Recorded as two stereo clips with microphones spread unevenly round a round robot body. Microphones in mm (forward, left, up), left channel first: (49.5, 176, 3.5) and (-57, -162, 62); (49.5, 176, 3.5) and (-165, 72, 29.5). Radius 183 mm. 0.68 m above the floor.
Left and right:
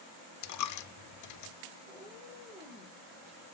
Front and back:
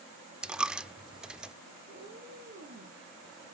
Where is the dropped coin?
120° left, 0.7 m.